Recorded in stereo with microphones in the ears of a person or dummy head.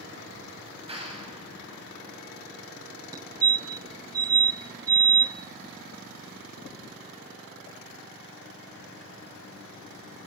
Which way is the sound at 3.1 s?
25° right (ahead or behind).